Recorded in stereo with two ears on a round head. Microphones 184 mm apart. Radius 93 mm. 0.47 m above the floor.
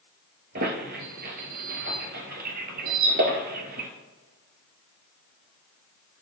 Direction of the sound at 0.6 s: 55° right (ahead or behind).